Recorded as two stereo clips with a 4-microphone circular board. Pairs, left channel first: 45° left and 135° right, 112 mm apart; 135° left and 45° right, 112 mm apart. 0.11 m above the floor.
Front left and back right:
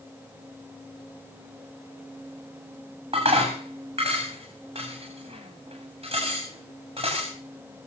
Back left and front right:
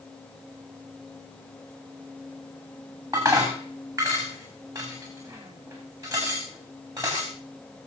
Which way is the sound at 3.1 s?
100° right.